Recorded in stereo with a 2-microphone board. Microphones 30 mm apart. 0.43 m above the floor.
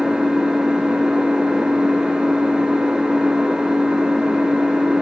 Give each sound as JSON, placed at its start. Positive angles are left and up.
{"t": 0.0, "sound": "an engine running", "side_deg": -30, "distance_m": 4.0}